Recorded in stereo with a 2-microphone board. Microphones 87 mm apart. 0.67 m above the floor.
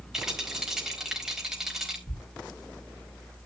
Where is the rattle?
5° right (ahead or behind), 4 m.